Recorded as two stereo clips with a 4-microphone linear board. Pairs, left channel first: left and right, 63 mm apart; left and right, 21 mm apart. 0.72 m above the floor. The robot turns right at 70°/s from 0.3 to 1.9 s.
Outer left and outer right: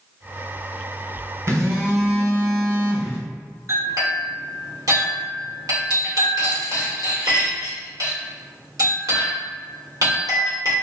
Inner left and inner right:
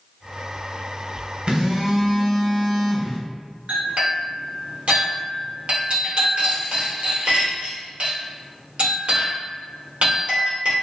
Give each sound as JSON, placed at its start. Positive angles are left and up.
{"t": 1.5, "sound": "a phone buzzing", "azimuth_deg": -70, "distance_m": 0.7}
{"t": 3.7, "sound": "a clink", "side_deg": -70, "distance_m": 1.5}